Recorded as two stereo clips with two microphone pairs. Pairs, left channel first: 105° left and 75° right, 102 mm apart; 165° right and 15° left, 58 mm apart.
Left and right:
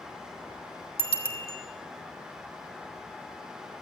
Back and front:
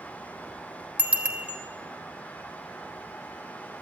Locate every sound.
1.0 s a bicycle bell: 85° left, 3 m